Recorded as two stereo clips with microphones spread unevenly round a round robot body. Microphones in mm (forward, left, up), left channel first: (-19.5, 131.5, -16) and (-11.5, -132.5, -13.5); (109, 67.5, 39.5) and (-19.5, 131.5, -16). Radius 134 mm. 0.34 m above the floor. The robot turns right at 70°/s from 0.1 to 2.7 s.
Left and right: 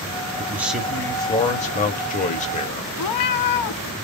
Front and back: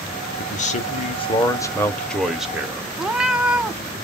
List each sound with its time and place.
0.4 s a man speaking: 25° right, 1.0 m; by 2.9 s 140° left, 1.0 m
3.0 s a cat meowing: 70° left, 0.6 m